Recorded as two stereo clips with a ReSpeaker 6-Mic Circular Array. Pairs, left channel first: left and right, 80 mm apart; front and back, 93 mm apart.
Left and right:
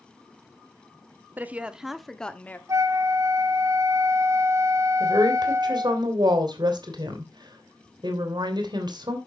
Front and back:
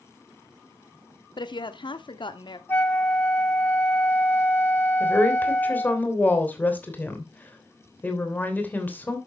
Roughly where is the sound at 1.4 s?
Ahead right.